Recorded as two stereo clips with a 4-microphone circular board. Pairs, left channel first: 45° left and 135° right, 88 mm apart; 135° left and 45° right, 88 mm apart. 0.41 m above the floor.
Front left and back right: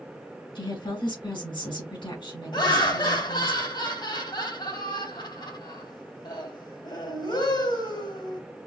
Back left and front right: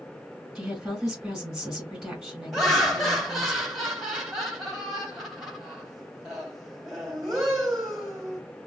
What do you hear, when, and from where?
0.6 s a woman speaking: 40° left, 3 m
2.5 s laughter: 45° left, 2.5 m